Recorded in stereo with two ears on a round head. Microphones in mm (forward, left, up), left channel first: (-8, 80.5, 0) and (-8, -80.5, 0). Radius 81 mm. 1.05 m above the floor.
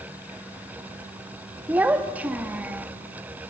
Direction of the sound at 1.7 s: 10° right (ahead or behind).